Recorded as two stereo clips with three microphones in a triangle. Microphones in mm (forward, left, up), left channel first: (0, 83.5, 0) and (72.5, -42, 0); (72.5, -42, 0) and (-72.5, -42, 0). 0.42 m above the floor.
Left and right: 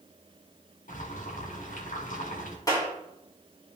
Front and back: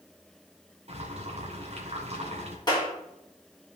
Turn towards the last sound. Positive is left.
turn(degrees=55)